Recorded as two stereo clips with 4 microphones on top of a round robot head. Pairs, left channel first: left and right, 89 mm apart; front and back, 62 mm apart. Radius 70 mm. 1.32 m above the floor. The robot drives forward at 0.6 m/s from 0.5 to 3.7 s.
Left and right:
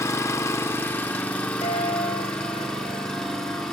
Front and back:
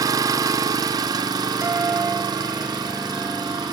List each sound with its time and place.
0.0 s an engine running: 155° left, 0.8 m; by 3.7 s 175° left, 2.5 m
1.6 s a guitar: 125° left, 3.5 m; by 3.6 s 135° left, 4.5 m